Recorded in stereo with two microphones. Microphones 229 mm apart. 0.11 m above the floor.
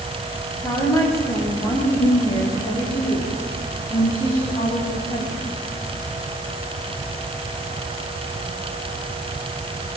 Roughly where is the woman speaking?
Centre.